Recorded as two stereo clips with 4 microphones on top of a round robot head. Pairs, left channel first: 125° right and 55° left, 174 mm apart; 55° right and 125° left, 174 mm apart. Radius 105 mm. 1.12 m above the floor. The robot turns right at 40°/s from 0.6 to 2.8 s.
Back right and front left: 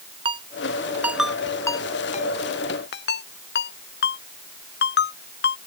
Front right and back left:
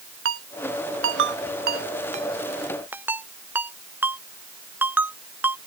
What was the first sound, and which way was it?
A ringtone, 115° left.